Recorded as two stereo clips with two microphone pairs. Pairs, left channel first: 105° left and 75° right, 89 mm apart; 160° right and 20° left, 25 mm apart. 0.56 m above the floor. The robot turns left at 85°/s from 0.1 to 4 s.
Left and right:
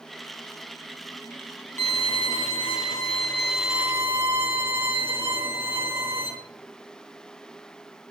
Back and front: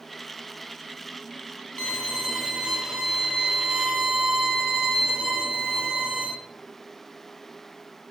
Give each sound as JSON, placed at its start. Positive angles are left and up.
{"t": 1.8, "sound": "a violin", "azimuth_deg": 170, "distance_m": 2.5}